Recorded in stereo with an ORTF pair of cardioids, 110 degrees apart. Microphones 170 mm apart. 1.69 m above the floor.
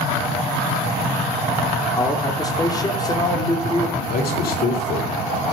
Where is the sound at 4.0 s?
65° left, 5.5 m.